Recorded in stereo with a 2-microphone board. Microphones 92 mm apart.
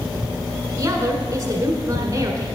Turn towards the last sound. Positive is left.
turn(degrees=-35)  # may be behind; listen again after turning